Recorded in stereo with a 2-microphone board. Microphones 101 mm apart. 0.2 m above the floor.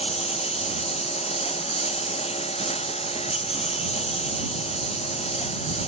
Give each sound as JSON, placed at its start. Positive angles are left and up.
{"t": 0.0, "sound": "a lawn mower", "side_deg": 85}